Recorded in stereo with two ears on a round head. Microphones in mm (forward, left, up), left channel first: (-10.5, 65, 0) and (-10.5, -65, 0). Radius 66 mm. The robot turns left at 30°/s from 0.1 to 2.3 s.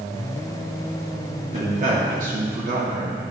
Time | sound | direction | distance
1.5 | a man speaking | 45° right (ahead or behind) | 1.8 m